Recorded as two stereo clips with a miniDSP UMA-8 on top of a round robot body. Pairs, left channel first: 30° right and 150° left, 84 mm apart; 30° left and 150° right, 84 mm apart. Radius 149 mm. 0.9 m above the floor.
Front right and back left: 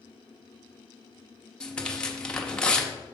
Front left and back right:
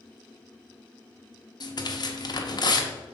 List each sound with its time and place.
1.6 s tearing paper: 50° left, 1.1 m